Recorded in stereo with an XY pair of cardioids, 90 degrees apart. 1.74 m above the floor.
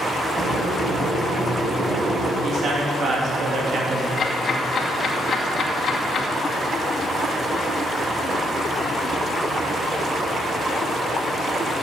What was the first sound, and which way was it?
Boiling, 35° right.